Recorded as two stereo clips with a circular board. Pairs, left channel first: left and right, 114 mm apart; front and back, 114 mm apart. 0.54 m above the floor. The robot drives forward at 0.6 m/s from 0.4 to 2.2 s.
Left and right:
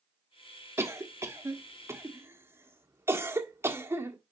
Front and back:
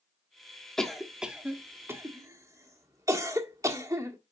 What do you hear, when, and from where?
0.8 s a cough: 80° right, 1.3 m; by 4.2 s 145° right, 1.5 m